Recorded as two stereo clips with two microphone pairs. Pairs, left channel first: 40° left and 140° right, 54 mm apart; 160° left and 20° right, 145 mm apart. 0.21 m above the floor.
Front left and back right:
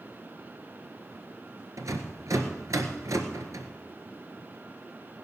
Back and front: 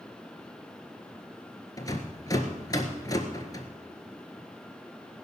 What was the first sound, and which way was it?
A rattle, 140° right.